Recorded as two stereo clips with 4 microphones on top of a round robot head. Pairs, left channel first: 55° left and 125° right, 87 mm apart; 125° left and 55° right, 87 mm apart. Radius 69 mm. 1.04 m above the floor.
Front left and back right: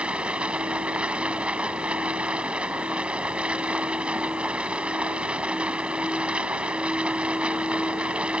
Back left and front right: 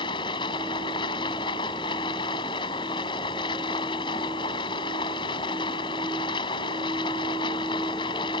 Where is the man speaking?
I don't hear a man speaking.